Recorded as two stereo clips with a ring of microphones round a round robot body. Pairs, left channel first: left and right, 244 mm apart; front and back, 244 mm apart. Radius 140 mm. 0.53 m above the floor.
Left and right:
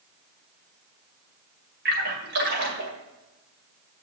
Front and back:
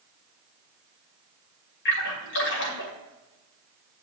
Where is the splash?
40° right, 2 m.